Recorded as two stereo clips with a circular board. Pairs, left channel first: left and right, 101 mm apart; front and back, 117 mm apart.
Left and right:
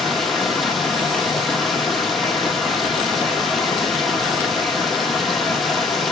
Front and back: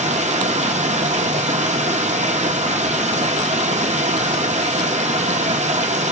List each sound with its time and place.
0.0 s running water: straight behind, 1.1 m